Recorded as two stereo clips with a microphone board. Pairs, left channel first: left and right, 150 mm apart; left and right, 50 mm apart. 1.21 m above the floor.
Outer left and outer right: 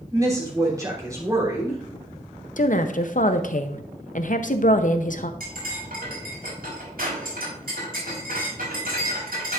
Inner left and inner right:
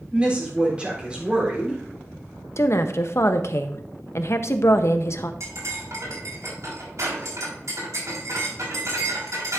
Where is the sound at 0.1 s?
25° right (ahead or behind), 3.5 m.